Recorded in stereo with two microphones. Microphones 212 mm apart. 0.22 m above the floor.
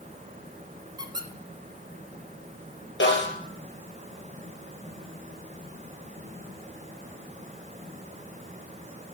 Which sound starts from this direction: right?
A squeak, at 1.0 s.